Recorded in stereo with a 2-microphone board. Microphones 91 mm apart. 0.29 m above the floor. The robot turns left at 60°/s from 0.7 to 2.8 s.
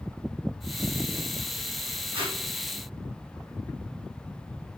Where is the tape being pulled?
75° right (ahead or behind), 2.5 m; by 2.4 s 60° right (ahead or behind), 2.5 m.